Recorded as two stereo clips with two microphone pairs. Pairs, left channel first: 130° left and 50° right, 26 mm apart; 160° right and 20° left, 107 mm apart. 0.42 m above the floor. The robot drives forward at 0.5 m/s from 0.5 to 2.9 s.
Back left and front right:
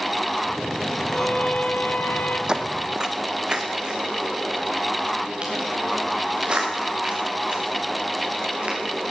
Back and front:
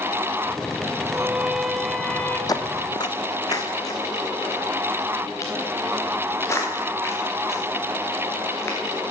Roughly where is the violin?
Left.